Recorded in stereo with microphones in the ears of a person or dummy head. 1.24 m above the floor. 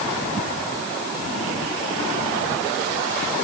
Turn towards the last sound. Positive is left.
No sound to turn to.